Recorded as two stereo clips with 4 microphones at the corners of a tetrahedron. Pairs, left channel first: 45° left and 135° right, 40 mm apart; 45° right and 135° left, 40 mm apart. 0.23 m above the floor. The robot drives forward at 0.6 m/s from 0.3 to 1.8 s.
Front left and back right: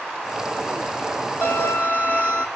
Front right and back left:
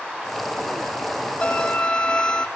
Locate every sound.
1.4 s a violin: 110° right, 2.5 m; by 2.5 s 115° right, 2.5 m